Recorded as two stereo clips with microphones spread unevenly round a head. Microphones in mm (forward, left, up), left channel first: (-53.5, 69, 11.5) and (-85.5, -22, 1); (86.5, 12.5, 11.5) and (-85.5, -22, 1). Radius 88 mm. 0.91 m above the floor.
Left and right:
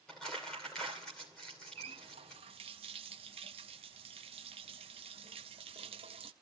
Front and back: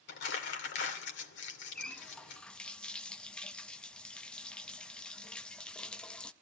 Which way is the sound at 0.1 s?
15° right.